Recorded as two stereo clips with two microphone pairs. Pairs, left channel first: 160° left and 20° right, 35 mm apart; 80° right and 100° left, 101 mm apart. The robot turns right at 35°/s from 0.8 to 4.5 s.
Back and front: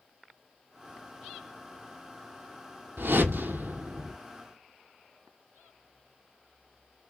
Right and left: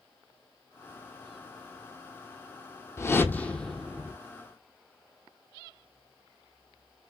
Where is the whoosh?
25° right, 0.6 m; by 4.2 s 20° left, 0.6 m.